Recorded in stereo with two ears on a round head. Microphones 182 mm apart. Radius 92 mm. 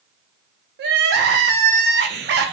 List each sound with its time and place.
0.8 s crying: 55° right (ahead or behind), 0.6 m